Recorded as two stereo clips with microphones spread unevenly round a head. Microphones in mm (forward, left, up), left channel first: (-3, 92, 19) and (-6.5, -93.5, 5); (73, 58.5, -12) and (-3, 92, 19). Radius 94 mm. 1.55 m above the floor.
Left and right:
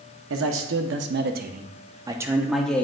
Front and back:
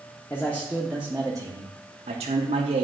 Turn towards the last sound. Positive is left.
turn(degrees=175)